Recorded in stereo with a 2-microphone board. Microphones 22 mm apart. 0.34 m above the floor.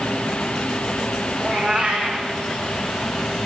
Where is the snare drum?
I don't hear a snare drum.